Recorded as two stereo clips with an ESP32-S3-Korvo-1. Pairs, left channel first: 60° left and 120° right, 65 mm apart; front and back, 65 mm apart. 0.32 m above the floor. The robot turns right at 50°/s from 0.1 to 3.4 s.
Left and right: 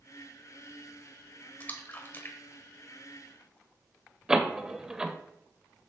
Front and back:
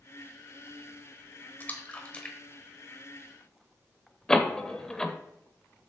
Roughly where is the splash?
Ahead left.